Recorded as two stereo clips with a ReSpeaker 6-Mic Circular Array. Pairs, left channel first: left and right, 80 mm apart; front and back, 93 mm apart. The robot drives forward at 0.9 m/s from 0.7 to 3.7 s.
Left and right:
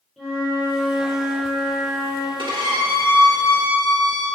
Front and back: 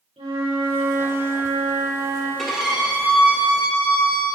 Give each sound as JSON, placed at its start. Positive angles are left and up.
{"t": 0.2, "sound": "a flute", "azimuth_deg": 180, "distance_m": 2.0}
{"t": 2.4, "sound": "a violin", "azimuth_deg": -90, "distance_m": 1.6}